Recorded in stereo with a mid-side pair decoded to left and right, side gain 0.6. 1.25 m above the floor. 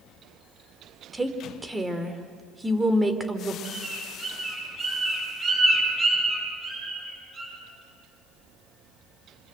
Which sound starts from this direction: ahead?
A woman speaking, at 1.1 s.